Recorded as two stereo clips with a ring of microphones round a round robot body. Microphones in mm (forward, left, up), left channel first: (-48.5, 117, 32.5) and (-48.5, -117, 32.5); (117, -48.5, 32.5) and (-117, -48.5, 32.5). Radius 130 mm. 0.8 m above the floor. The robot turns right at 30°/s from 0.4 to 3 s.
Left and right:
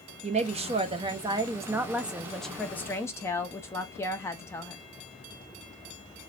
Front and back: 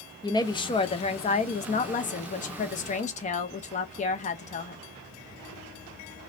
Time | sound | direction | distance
0.2 | a woman speaking | 55° right | 0.6 m